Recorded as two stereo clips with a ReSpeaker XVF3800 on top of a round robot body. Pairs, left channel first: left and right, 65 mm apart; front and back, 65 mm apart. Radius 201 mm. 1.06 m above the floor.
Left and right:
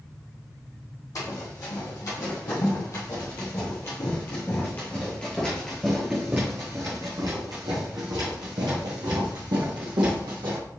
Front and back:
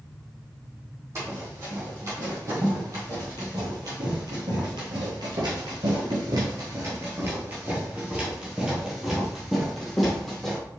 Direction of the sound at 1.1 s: 125° left.